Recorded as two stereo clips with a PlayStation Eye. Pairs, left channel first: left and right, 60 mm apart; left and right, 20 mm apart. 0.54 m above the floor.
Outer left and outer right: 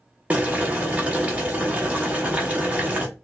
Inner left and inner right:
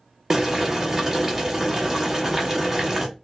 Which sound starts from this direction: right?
Boiling, at 0.3 s.